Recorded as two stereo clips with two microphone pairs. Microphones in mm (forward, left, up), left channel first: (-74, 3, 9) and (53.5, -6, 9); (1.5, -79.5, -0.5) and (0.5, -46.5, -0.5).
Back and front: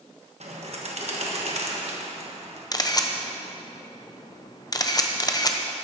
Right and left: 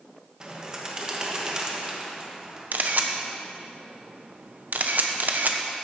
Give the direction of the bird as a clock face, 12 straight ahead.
11 o'clock.